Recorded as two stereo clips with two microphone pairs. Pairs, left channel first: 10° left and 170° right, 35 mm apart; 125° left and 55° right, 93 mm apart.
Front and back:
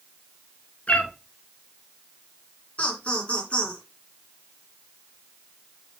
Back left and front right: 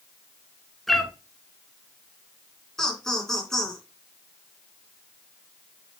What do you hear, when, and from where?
0.9 s a cat meowing: 40° left, 1.1 m
2.8 s laughter: 40° left, 2.5 m